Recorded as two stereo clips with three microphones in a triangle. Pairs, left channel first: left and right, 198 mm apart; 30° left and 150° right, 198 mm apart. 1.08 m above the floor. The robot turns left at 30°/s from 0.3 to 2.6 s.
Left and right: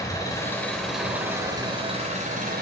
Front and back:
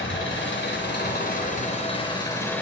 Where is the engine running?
20° left, 3.5 m; by 2.6 s 50° right, 3.5 m.